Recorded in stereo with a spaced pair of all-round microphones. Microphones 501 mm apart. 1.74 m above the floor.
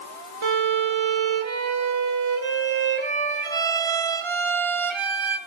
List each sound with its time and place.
0.4 s a violin: 65° right (ahead or behind), 0.6 m